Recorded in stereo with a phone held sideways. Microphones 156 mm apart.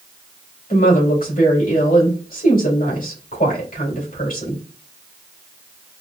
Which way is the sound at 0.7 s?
65° left (ahead or behind).